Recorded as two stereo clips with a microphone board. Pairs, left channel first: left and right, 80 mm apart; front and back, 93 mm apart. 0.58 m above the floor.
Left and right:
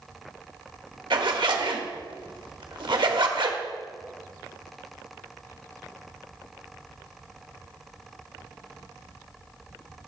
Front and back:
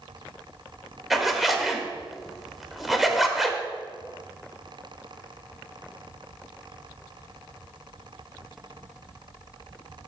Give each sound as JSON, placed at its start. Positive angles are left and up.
{"t": 1.1, "sound": "a zipper", "azimuth_deg": -90, "distance_m": 0.9}